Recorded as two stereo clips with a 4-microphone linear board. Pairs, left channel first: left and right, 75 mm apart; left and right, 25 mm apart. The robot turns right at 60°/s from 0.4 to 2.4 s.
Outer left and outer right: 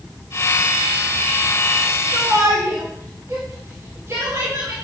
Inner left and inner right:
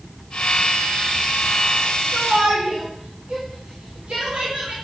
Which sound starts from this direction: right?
A shout, at 2.1 s.